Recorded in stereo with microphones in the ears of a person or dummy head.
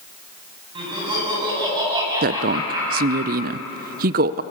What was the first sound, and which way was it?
Laughter, 25° right (ahead or behind).